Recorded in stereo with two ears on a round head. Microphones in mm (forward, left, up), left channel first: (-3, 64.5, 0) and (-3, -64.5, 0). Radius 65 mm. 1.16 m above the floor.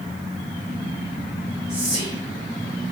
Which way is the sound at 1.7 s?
50° right (ahead or behind).